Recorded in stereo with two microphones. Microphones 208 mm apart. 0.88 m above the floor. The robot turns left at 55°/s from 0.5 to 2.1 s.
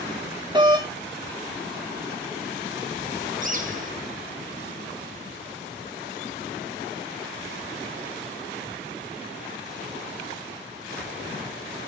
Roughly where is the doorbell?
Right.